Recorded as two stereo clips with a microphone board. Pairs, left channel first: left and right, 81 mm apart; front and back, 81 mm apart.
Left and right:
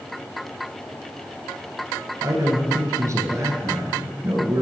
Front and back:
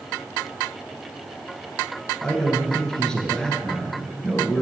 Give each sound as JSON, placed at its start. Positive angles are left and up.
{"t": 2.2, "sound": "a man speaking", "azimuth_deg": -75, "distance_m": 1.6}